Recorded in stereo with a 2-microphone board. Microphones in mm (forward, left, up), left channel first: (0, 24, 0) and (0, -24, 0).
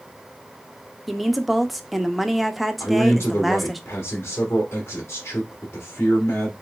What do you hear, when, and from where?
1.1 s a woman speaking: centre (ahead or behind), 0.6 m
2.8 s a man speaking: 50° left (ahead or behind), 1.9 m